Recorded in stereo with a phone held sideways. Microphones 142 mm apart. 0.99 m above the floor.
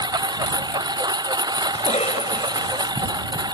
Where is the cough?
45° left (ahead or behind).